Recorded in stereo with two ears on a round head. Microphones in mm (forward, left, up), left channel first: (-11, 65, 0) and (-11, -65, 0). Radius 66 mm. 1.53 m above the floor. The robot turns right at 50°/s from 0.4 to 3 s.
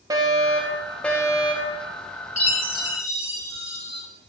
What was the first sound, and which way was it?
A fire alarm, 25° right.